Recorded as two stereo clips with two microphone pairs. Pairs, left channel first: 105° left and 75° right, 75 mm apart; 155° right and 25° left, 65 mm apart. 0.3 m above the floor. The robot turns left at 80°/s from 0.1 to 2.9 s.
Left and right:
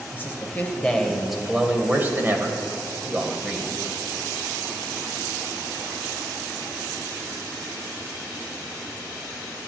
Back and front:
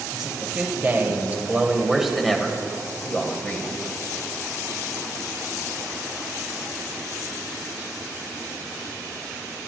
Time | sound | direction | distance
0.1 | a man speaking | 105° left | 1.0 m